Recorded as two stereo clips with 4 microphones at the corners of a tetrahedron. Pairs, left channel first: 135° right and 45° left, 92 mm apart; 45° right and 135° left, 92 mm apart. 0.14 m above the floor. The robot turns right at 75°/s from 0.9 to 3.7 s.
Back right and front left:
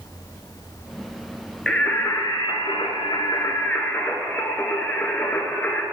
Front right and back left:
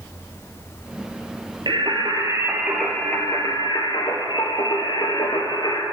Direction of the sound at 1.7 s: 140° left.